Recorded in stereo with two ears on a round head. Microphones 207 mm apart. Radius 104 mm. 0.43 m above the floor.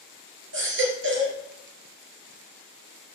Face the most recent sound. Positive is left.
turn(degrees=-60)  # may be behind; listen again after turning